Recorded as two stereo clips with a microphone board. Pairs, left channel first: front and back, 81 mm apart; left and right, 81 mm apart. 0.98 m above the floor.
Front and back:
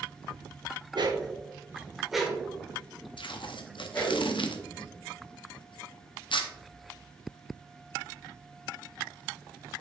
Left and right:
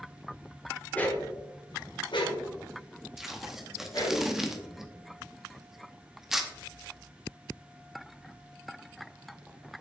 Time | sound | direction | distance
0.9 | a dog barking | 160° left | 1.3 m
3.2 | tape being pulled | 5° right | 0.8 m